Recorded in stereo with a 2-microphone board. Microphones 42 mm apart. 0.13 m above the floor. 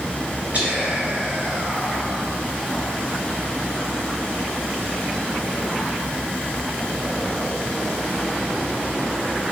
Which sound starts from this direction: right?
Whispering, at 0.5 s.